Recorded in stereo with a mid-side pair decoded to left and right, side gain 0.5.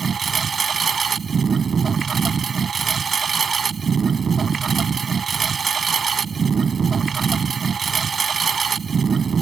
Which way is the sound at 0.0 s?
40° right.